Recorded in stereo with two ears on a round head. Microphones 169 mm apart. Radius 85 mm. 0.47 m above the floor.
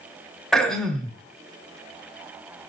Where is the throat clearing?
Centre (ahead or behind), 1.3 m.